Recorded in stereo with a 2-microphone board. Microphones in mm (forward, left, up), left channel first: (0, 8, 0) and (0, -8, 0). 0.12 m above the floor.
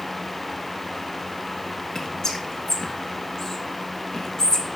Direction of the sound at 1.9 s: 45° left (ahead or behind).